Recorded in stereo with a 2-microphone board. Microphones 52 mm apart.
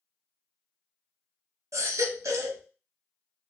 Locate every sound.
1.7 s a baby crying: 80° right, 0.6 m